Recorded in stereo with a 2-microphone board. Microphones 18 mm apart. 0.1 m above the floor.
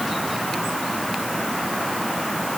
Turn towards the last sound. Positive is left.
No sound to turn to.